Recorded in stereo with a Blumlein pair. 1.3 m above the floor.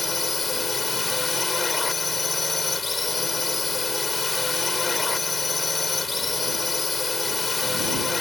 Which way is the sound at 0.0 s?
15° left.